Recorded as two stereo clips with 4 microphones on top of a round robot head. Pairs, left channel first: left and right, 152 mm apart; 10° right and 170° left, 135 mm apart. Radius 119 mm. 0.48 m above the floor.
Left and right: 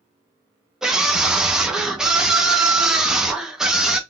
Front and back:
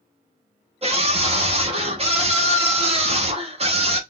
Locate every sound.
0.8 s a scream: 175° right, 1.7 m